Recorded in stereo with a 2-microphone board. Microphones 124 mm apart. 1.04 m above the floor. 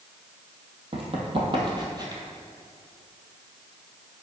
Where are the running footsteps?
50° right (ahead or behind), 1.8 m; by 2.2 s 30° right (ahead or behind), 1.4 m.